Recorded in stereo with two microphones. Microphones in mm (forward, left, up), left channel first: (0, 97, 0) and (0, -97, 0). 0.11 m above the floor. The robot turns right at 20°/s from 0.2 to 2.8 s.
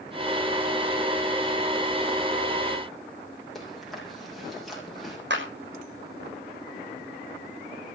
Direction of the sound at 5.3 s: 65° right (ahead or behind).